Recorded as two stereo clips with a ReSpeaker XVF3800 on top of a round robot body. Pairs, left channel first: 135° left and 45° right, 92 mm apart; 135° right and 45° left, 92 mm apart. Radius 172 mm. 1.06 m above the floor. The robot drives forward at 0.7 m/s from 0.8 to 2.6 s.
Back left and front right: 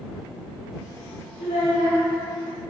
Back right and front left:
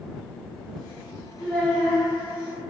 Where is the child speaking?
140° left, 1.0 m; by 2.0 s 150° left, 1.3 m.